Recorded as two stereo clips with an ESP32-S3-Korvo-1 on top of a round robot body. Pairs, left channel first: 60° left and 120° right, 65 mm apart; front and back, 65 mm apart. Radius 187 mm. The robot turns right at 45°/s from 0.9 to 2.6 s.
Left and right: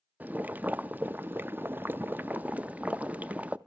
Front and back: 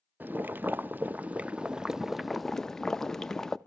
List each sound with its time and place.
0.2 s boiling: 155° right, 0.8 m; by 3.6 s 75° right, 0.8 m